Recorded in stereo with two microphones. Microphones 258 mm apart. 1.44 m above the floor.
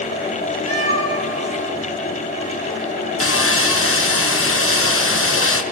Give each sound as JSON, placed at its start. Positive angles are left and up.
{"t": 0.7, "sound": "a cat meowing", "side_deg": 70, "distance_m": 4.0}
{"t": 3.2, "sound": "sawing", "side_deg": 55, "distance_m": 1.1}